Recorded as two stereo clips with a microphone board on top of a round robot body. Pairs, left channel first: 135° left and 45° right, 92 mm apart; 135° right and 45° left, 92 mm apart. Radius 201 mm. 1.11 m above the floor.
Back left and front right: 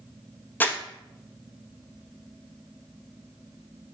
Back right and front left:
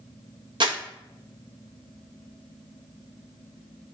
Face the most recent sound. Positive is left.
turn(degrees=65)